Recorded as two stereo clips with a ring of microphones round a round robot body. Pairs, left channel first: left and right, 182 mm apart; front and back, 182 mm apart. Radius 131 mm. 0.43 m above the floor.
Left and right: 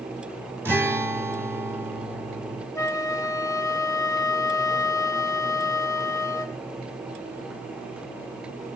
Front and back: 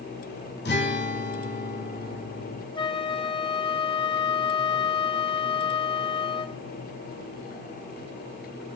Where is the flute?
35° left, 1.1 m.